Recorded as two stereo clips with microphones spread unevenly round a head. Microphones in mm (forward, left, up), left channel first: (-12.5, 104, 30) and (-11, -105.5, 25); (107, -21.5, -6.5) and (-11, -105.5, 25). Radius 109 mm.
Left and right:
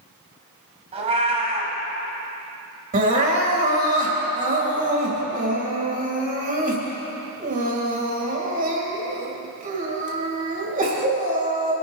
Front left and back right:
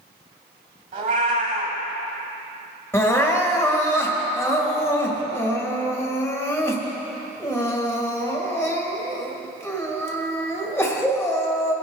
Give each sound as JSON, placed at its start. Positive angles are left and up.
{"t": 0.9, "sound": "a cat meowing", "azimuth_deg": -150, "distance_m": 1.6}
{"t": 2.9, "sound": "crying", "azimuth_deg": -35, "distance_m": 2.5}